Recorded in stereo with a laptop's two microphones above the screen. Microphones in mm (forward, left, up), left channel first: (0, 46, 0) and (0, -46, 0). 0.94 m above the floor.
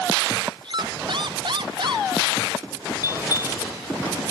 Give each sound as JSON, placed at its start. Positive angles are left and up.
{"t": 0.6, "sound": "a squeak", "side_deg": -60}
{"t": 3.0, "sound": "a bell", "side_deg": 40}